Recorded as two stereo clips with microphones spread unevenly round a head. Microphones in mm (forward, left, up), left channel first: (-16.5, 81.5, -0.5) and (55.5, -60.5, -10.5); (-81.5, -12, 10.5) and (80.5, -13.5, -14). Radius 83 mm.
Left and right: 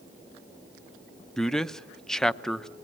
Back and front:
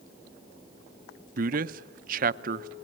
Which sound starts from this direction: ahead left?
A man speaking, at 1.4 s.